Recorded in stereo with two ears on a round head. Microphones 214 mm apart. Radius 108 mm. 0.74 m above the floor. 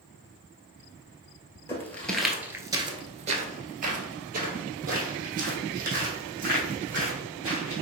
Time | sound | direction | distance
1.7 | footsteps | 10° left (ahead or behind) | 1.0 m